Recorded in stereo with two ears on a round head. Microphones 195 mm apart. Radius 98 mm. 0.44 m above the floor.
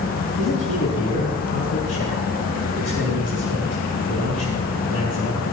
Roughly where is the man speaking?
Left.